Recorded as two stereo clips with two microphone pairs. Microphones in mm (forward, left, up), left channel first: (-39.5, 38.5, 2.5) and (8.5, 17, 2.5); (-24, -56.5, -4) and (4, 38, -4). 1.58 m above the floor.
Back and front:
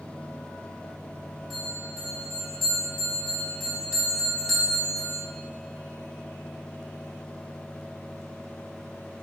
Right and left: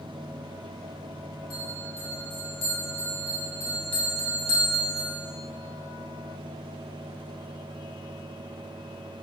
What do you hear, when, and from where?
1.5 s a bell: 120° right, 1.0 m